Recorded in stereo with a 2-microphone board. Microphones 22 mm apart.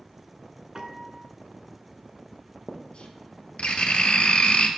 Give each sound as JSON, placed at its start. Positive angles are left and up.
{"t": 0.8, "sound": "a piano", "side_deg": -35, "distance_m": 1.2}
{"t": 2.7, "sound": "writing", "side_deg": 60, "distance_m": 1.6}